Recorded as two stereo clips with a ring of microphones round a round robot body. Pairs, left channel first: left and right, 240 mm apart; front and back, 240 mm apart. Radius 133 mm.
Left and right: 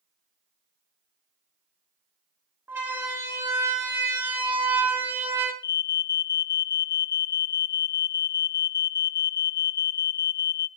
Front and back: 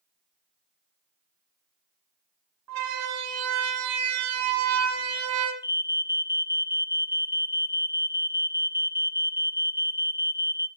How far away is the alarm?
About 0.9 m.